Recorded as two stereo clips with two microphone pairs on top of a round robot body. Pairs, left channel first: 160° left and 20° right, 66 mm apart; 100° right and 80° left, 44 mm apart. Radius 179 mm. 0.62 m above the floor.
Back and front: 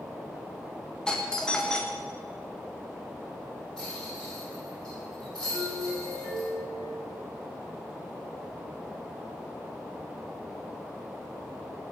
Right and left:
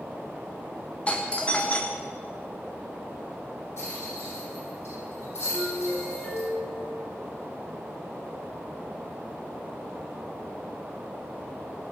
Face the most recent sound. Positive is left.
turn(degrees=-140)